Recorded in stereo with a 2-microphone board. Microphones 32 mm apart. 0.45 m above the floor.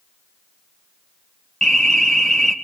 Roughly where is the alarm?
Centre.